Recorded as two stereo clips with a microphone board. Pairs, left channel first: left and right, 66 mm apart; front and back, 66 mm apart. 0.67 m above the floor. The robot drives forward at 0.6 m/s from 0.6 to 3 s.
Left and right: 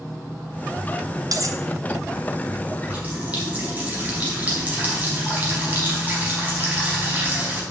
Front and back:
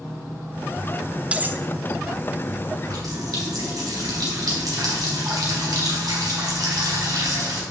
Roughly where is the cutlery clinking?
Right.